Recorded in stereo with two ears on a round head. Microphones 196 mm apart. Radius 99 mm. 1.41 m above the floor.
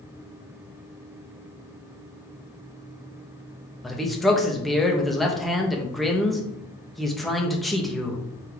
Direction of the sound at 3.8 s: Centre (ahead or behind).